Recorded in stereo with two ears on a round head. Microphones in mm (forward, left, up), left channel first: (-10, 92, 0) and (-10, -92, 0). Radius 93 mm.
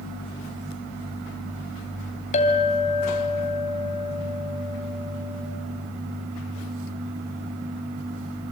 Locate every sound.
2.3 s a clink: 35° left (ahead or behind), 2.5 m